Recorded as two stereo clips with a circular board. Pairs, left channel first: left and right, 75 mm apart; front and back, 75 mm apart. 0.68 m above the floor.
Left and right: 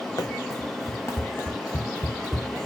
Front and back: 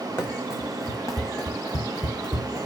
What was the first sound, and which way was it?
Running footsteps, 55° left.